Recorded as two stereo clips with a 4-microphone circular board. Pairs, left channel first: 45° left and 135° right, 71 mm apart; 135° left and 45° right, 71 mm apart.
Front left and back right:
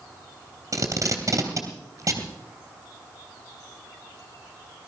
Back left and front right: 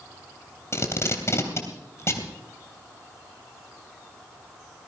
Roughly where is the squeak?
I don't hear a squeak.